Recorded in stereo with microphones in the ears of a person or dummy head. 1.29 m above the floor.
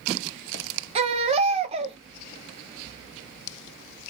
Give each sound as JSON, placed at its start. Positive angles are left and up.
{"t": 0.9, "sound": "a baby crying", "side_deg": -30, "distance_m": 0.6}